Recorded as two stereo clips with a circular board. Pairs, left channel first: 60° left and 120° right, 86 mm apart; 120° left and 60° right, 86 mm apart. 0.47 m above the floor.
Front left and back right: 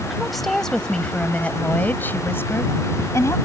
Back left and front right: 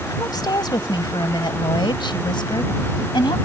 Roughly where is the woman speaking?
Behind left.